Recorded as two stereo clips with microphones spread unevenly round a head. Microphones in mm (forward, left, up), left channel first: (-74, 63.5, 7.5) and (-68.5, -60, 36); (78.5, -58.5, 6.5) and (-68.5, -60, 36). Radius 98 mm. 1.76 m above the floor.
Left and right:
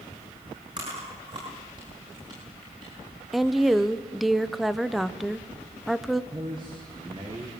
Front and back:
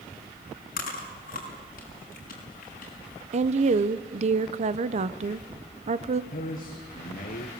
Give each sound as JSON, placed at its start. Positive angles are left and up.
{"t": 0.8, "sound": "chewing", "azimuth_deg": -25, "distance_m": 5.5}
{"t": 3.3, "sound": "a woman speaking", "azimuth_deg": -165, "distance_m": 0.9}
{"t": 6.3, "sound": "a man speaking", "azimuth_deg": -20, "distance_m": 2.0}